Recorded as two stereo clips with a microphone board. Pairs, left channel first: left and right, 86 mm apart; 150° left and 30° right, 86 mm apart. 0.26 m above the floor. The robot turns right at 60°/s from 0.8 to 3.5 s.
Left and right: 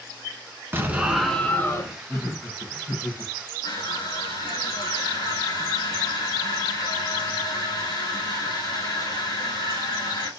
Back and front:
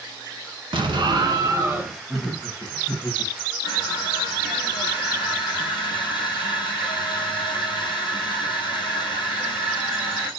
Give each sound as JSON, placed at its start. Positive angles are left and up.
{"t": 0.7, "sound": "an explosion", "azimuth_deg": -25, "distance_m": 0.9}
{"t": 2.1, "sound": "laughter", "azimuth_deg": 60, "distance_m": 1.2}
{"t": 3.6, "sound": "crushing", "azimuth_deg": 125, "distance_m": 2.0}